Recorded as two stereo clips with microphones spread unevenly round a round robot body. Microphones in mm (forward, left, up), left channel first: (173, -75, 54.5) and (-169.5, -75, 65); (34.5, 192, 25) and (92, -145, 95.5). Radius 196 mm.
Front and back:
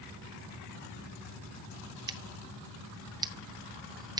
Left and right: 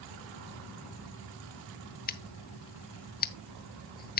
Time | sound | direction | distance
2.1 | scissors | 105° left | 0.6 m